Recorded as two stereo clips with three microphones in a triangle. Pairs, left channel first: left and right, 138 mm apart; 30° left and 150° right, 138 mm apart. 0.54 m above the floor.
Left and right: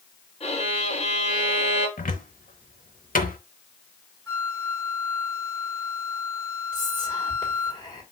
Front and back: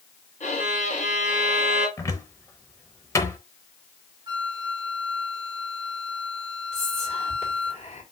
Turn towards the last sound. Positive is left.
turn(degrees=40)